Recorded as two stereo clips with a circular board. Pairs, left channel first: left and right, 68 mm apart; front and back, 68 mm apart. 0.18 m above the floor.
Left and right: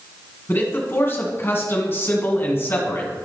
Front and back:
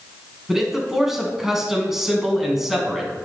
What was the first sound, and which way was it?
A man speaking, 100° left.